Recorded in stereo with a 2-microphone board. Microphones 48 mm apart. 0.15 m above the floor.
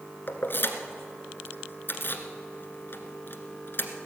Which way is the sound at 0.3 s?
55° left (ahead or behind).